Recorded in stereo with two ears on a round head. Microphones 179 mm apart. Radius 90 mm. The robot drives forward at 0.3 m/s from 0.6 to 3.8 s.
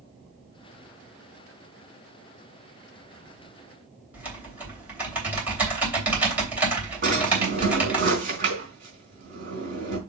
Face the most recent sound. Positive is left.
turn(degrees=-45)  # may be behind; listen again after turning